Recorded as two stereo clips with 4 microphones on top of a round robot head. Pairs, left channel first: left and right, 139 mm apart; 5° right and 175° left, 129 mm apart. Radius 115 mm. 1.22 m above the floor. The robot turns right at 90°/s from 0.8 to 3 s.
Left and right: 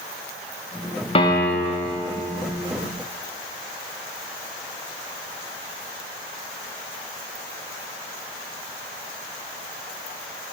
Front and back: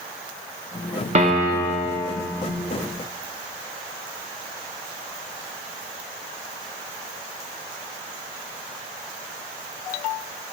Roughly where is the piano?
Behind left.